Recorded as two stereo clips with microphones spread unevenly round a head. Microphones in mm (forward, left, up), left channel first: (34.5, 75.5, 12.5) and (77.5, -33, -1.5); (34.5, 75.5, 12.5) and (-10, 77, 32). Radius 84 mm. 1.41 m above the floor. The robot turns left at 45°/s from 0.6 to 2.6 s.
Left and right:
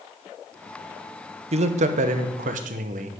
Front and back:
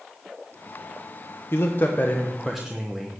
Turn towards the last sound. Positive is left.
turn(degrees=-95)